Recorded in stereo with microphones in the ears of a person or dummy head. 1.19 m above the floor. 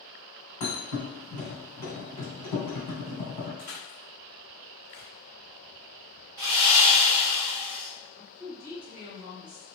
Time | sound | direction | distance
0.6 | a thud | 35° left (ahead or behind) | 1.9 m
3.6 | crushing | 55° left (ahead or behind) | 1.0 m
6.4 | sawing | 20° right (ahead or behind) | 1.0 m
8.2 | a woman speaking | 30° right (ahead or behind) | 1.2 m